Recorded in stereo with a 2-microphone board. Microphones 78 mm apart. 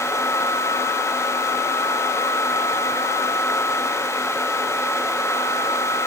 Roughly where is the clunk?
No clunk in this recording.